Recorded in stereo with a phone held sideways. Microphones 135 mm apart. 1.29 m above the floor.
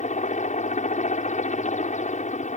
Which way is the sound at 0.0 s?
60° left (ahead or behind).